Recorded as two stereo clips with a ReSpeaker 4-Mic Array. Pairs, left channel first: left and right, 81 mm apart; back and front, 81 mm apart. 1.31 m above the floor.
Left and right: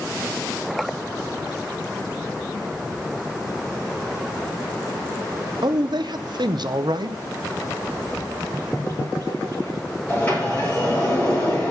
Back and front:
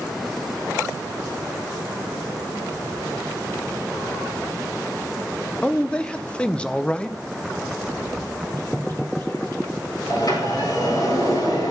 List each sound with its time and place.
5.6 s a man speaking: 105° right, 0.6 m
8.1 s a bird: 135° left, 3.5 m
10.1 s a sliding door: 160° left, 5 m